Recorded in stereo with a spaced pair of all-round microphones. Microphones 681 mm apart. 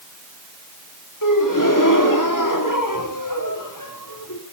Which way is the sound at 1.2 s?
30° left (ahead or behind).